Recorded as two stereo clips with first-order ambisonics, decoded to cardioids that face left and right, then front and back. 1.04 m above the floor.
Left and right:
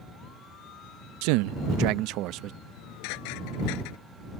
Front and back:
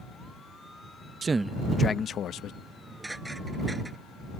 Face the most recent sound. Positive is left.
turn(degrees=95)